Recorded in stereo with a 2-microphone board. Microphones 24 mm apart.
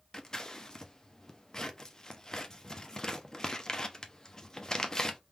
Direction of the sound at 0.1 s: 30° left (ahead or behind).